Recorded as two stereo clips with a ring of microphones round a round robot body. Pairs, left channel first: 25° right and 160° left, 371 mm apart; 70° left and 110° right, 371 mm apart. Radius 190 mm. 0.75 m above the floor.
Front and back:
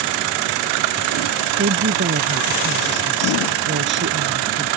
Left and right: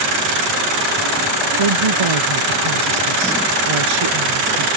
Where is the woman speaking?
140° right.